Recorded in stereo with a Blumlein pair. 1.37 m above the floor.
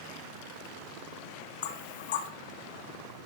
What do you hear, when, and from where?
1.6 s knocking: 55° left, 0.8 m